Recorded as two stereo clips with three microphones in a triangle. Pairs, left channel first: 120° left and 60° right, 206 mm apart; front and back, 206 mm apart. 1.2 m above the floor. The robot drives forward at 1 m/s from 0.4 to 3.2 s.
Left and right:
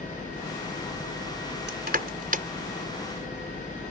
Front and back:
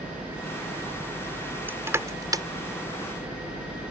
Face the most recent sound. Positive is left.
turn(degrees=-115)